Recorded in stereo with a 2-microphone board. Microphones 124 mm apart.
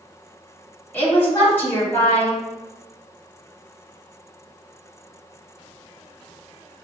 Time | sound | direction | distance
0.9 | a woman speaking | 15° left (ahead or behind) | 1.3 m